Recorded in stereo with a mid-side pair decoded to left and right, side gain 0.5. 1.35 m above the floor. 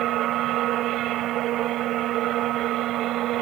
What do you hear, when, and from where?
0.0 s a machine running: 70° right